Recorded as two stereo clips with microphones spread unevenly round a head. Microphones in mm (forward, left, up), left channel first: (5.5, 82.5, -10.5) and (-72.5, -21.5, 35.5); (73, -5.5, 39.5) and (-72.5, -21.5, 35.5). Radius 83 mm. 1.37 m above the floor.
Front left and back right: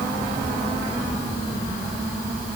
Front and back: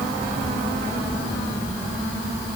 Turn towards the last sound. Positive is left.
No sound to turn to.